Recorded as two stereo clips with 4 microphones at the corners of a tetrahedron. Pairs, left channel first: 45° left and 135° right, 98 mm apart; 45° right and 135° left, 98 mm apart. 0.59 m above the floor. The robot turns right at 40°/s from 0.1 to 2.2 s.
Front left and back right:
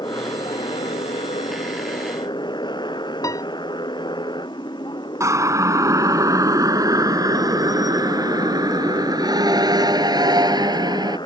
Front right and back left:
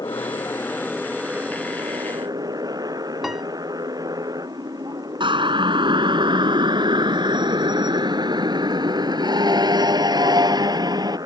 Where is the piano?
45° left.